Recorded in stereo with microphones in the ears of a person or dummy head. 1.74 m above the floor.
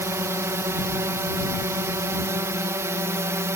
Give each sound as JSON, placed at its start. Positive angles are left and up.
{"t": 0.0, "sound": "a drone", "side_deg": -15}